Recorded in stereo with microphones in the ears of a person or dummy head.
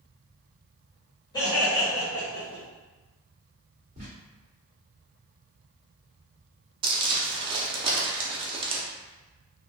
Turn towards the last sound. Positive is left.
turn(degrees=-25)  # may be behind; listen again after turning